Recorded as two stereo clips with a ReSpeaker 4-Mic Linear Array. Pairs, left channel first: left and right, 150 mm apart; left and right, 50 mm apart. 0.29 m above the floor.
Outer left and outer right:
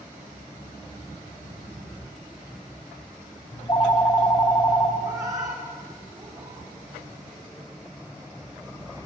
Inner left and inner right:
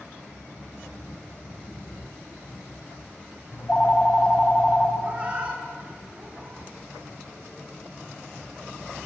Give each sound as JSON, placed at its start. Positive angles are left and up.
{"t": 3.5, "sound": "a phone ringing", "side_deg": 30, "distance_m": 0.7}
{"t": 5.0, "sound": "a cat meowing", "side_deg": -25, "distance_m": 1.5}